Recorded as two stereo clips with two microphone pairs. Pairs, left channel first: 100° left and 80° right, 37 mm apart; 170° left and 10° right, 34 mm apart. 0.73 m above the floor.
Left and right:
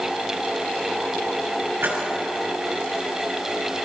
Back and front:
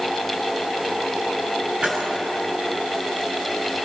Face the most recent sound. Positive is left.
turn(degrees=-70)